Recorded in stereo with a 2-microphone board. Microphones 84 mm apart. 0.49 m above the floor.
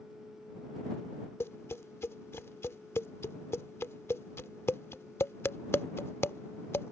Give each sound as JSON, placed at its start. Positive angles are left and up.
{"t": 1.4, "sound": "tapping", "side_deg": 30}